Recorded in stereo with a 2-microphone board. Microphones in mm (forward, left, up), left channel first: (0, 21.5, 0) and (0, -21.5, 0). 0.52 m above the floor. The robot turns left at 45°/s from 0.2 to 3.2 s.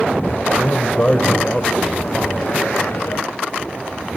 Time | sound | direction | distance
0.5 | a man speaking | 55° left | 2.5 m